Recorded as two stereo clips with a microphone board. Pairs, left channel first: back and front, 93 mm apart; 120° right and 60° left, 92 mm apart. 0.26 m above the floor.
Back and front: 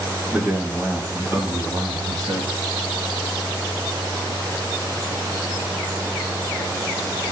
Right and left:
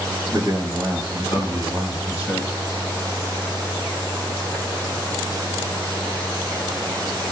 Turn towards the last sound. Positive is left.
turn(degrees=-20)